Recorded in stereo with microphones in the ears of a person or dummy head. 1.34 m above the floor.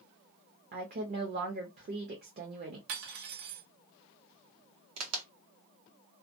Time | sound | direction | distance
0.7 | a woman speaking | 45° right (ahead or behind) | 0.7 m
2.9 | cutlery clinking | 60° right (ahead or behind) | 0.8 m
5.0 | a crack | 80° right | 1.0 m